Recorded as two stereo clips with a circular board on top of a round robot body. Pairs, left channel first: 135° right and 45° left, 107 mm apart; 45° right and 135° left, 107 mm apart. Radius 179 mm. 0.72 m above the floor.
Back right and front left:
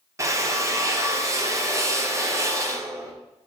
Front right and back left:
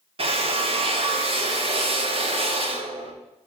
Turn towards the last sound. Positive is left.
turn(degrees=105)